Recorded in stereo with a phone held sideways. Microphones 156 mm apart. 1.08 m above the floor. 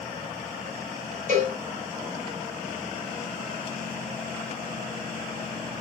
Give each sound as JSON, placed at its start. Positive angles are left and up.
{"t": 1.3, "sound": "a cowbell", "side_deg": -55, "distance_m": 5.0}